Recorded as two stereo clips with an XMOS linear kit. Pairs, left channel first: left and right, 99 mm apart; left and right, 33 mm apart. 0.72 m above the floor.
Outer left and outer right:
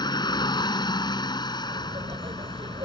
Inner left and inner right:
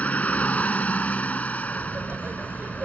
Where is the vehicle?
50° left (ahead or behind).